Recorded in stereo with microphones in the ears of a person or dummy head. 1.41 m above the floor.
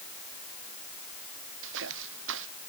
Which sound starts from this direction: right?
Footsteps, at 1.6 s.